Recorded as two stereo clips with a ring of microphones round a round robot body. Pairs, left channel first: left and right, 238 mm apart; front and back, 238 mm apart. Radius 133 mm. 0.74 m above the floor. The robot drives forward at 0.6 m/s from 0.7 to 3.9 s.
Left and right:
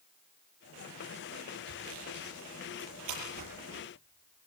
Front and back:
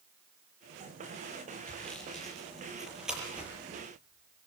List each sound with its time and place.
1.7 s sawing: 85° right, 7 m; by 3.5 s 95° right, 7 m